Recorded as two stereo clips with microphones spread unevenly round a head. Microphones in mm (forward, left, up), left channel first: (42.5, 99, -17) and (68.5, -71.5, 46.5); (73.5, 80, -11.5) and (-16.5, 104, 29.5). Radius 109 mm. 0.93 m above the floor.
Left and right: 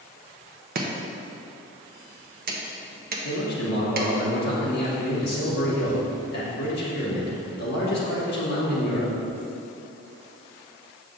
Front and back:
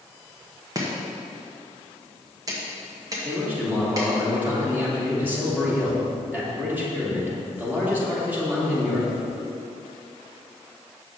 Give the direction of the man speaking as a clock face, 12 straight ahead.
9 o'clock.